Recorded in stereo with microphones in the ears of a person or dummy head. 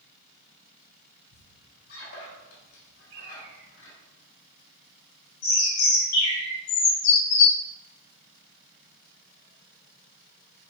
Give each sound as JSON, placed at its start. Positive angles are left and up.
{"t": 1.3, "sound": "a squeak", "side_deg": 70, "distance_m": 3.0}
{"t": 3.1, "sound": "a bird", "side_deg": -80, "distance_m": 2.5}
{"t": 5.4, "sound": "a bird", "side_deg": 65, "distance_m": 4.0}